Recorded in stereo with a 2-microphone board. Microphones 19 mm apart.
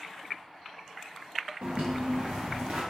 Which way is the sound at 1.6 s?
75° right (ahead or behind).